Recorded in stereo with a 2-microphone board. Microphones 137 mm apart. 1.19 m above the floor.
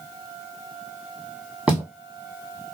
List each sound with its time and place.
1.7 s footsteps: 5° right (ahead or behind), 2.0 m